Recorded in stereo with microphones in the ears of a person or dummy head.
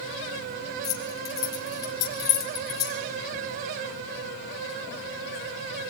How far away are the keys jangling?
About 3 m.